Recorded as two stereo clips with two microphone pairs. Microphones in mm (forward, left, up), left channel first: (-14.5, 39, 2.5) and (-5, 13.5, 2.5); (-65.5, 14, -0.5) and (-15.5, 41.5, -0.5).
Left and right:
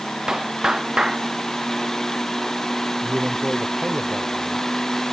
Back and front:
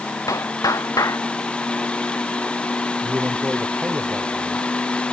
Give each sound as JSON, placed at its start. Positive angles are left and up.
{"t": 0.3, "sound": "a clap", "azimuth_deg": -135}
{"t": 3.0, "sound": "a man speaking", "azimuth_deg": -30}